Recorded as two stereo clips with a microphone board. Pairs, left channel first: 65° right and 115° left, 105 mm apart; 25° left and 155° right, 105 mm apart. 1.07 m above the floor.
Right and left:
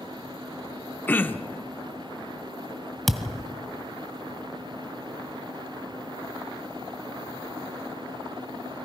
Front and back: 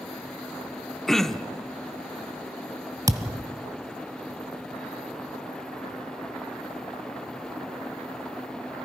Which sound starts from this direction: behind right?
A thud, at 3.1 s.